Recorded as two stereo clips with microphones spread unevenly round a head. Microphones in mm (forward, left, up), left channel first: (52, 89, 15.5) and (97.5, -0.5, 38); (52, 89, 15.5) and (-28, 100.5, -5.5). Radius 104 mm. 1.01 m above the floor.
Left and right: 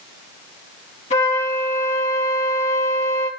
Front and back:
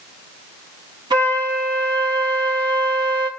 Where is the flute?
155° left, 5.5 m.